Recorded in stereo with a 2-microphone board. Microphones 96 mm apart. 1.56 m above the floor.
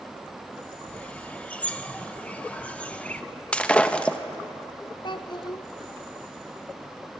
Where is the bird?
15° left (ahead or behind), 0.9 m.